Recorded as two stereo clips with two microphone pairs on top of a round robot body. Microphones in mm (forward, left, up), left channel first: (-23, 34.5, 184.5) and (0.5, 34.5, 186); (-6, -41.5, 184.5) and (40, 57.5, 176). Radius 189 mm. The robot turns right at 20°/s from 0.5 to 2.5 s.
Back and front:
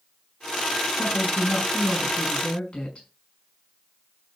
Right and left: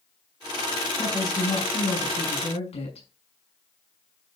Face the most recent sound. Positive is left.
turn(degrees=-140)